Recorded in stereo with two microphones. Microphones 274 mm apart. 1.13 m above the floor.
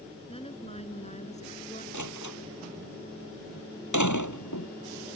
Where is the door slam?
85° left.